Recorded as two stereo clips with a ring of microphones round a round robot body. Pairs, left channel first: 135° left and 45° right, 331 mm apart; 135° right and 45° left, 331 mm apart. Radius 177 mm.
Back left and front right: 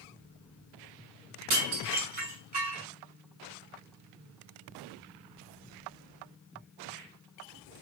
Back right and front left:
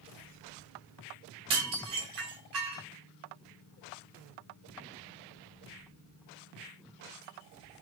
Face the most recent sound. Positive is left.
turn(degrees=20)